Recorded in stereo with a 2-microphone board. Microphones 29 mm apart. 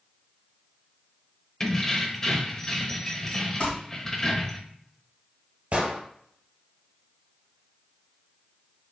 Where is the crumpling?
40° left (ahead or behind), 1.9 m.